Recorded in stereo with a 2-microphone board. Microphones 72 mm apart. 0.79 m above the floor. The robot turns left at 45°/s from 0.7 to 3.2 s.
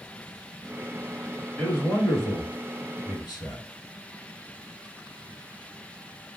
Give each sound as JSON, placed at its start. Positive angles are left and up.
{"t": 1.6, "sound": "a man speaking", "azimuth_deg": 170, "distance_m": 1.3}